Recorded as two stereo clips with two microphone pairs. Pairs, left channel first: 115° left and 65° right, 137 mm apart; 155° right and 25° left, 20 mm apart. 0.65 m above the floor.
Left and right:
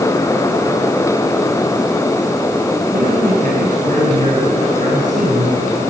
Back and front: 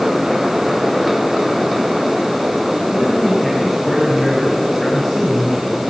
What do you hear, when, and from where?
2.9 s a man speaking: 55° right, 5.5 m